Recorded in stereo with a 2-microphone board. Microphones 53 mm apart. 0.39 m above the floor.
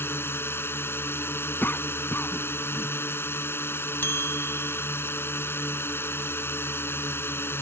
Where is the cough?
40° left (ahead or behind).